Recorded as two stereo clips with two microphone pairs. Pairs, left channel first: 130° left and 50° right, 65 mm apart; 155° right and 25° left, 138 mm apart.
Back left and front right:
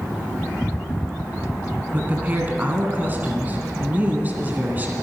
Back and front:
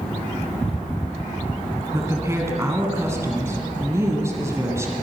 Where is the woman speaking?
25° right, 1.6 m.